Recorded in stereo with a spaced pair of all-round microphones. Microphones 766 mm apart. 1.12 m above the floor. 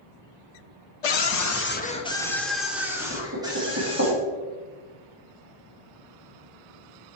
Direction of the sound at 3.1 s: 20° right (ahead or behind).